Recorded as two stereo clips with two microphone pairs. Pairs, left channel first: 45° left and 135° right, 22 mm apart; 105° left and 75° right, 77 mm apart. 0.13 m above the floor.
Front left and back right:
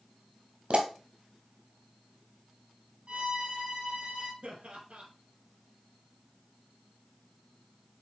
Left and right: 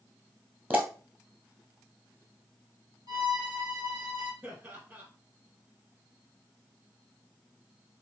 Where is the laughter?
130° right, 3.5 m.